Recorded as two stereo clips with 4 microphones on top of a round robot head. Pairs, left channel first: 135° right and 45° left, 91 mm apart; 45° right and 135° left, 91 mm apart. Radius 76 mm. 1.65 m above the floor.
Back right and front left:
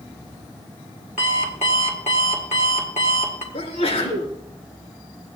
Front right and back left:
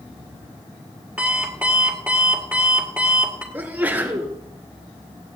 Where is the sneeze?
150° right, 3.5 m.